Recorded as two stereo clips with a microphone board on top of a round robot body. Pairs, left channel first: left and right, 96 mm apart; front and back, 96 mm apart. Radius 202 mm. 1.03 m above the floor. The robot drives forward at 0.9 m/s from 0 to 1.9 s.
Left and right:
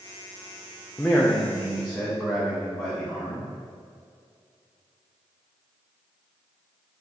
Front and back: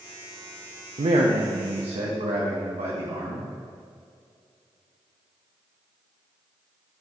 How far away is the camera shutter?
No camera shutter in this recording.